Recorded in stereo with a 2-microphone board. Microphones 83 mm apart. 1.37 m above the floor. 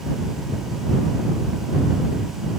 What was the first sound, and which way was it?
Only background noise.